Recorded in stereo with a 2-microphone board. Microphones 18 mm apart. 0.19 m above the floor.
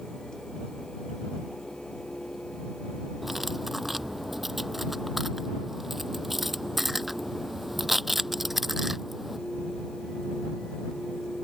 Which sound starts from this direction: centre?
Cutlery clinking, at 3.2 s.